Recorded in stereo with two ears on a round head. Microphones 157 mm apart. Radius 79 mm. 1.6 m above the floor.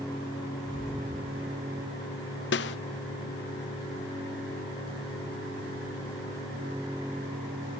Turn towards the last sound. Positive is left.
turn(degrees=65)  # may be behind; listen again after turning